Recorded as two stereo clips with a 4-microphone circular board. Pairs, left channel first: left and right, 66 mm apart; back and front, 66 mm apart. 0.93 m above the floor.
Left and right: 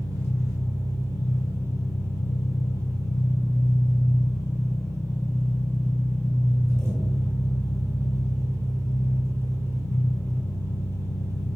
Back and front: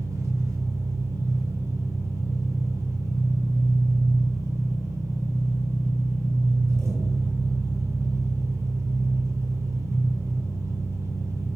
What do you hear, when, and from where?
0.0 s an engine running: 45° right, 2 m